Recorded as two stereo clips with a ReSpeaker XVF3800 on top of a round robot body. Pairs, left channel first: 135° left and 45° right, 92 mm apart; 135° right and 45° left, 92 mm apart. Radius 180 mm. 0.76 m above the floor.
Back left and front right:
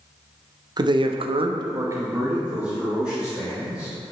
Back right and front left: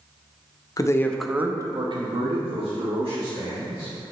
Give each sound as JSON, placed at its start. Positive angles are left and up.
{"t": 0.8, "sound": "a man speaking", "azimuth_deg": -85, "distance_m": 1.0}